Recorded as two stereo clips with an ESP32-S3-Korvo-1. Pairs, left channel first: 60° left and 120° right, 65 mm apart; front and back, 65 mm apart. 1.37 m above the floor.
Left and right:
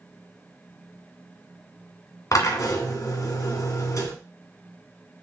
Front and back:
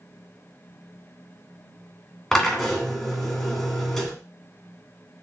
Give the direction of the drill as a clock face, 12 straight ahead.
9 o'clock.